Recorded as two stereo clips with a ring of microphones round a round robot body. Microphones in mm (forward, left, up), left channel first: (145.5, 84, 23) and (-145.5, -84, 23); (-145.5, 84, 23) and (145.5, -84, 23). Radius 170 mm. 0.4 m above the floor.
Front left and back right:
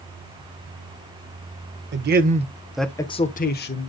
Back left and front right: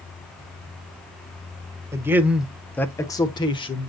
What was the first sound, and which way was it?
A man speaking, 110° right.